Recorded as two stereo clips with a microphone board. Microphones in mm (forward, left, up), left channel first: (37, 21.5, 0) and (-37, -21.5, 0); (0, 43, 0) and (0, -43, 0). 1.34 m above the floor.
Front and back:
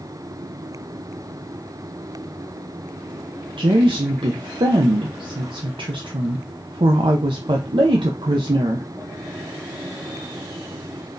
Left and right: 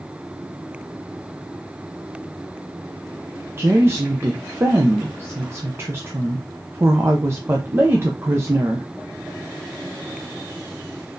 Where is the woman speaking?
150° right, 0.6 m.